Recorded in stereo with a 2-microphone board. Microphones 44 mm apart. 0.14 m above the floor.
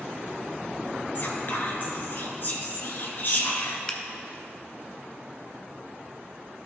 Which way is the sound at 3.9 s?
25° left (ahead or behind).